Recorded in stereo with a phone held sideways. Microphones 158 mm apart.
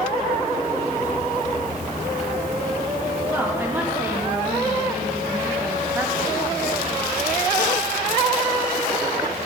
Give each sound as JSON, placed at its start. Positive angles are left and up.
{"t": 3.3, "sound": "a woman speaking", "side_deg": -15, "distance_m": 3.5}